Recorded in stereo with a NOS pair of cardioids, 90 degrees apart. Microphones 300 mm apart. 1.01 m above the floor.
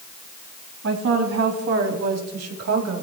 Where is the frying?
No frying in this recording.